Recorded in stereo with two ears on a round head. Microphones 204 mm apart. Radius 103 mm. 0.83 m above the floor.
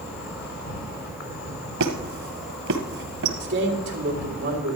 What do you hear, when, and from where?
0.0 s an insect: 75° left (ahead or behind), 4 m
1.8 s a squeak: 65° right (ahead or behind), 1.8 m
3.4 s a man speaking: 50° right (ahead or behind), 3 m